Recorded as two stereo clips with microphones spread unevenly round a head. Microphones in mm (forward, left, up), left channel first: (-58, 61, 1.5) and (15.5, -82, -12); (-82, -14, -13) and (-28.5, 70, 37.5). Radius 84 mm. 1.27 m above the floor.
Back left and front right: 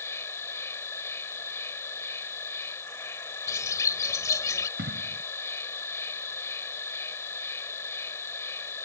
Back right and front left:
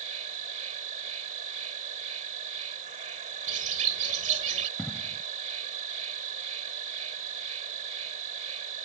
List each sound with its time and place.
0.0 s an insect: 40° left
3.5 s a bird: 45° left
4.8 s an explosion: 25° right